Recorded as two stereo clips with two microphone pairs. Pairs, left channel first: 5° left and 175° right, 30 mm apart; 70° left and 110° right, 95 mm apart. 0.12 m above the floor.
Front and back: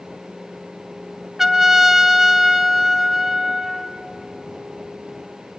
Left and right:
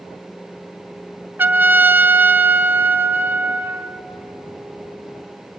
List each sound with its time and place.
1.4 s a trumpet: 115° right, 0.9 m